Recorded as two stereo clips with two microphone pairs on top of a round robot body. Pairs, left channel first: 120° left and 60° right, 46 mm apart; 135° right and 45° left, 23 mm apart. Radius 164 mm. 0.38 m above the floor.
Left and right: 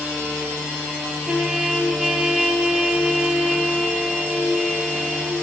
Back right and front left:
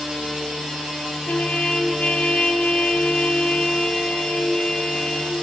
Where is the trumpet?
135° right, 2.5 m.